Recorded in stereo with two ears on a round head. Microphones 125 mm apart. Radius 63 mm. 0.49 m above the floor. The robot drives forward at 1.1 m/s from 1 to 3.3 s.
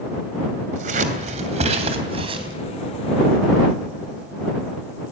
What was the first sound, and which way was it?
Scissors, 60° right (ahead or behind).